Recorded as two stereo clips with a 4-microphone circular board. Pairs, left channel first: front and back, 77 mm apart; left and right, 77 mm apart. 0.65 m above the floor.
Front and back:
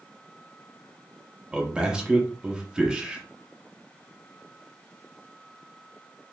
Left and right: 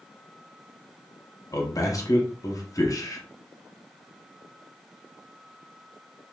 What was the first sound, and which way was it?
A man speaking, 105° left.